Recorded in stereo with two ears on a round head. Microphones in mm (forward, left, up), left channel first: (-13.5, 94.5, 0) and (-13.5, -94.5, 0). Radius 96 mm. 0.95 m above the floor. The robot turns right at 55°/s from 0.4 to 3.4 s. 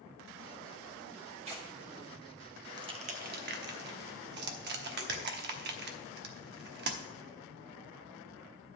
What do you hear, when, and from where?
1.4 s tearing paper: 30° right (ahead or behind), 1.8 m; by 1.7 s 20° right (ahead or behind), 1.8 m
2.8 s crushing: 20° right (ahead or behind), 1.0 m; by 7.0 s 55° right (ahead or behind), 1.0 m